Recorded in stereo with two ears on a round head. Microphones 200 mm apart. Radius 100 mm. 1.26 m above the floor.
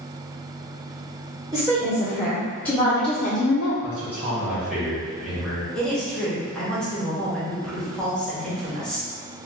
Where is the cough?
I don't hear a cough.